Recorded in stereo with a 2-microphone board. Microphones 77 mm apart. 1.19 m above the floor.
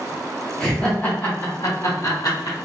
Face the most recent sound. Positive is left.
turn(degrees=60)  # may be behind; listen again after turning